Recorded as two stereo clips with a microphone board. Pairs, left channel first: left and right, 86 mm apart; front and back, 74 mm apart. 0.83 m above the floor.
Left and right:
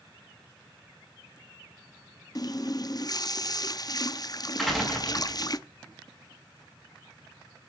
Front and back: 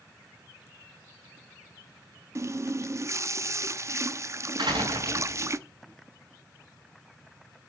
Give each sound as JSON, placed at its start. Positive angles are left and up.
{"t": 2.4, "sound": "a running tap", "azimuth_deg": 135, "distance_m": 0.6}
{"t": 4.6, "sound": "a door slam", "azimuth_deg": 180, "distance_m": 5.5}